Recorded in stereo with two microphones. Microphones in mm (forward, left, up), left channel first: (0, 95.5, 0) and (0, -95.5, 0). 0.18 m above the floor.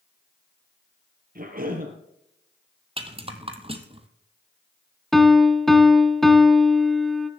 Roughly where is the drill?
No drill in this recording.